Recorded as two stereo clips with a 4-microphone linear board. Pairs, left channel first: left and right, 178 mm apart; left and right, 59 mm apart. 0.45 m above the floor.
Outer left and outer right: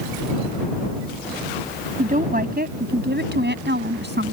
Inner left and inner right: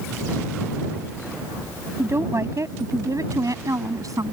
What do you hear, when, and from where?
2.0 s a woman speaking: 45° right (ahead or behind); by 4.3 s 75° right (ahead or behind)